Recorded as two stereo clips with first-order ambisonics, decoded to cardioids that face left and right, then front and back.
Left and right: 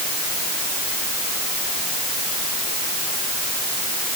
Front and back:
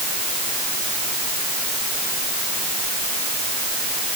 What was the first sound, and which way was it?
Only background noise.